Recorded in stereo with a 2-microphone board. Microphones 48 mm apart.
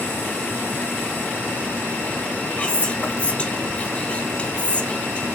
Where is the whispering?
25° left (ahead or behind), 1.1 m.